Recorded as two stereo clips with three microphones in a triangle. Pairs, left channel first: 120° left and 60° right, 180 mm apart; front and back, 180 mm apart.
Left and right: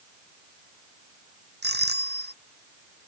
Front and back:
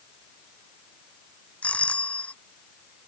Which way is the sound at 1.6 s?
85° right.